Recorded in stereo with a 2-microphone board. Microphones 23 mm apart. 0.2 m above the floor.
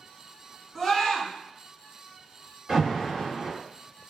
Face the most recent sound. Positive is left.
turn(degrees=-35)  # may be behind; listen again after turning